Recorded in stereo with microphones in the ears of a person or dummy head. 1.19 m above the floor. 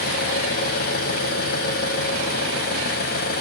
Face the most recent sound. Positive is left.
turn(degrees=60)  # may be behind; listen again after turning